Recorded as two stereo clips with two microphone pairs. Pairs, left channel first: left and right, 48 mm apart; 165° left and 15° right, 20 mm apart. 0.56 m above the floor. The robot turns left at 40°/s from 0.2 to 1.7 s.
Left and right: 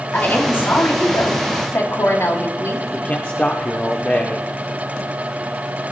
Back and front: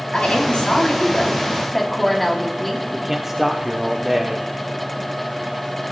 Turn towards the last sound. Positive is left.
turn(degrees=50)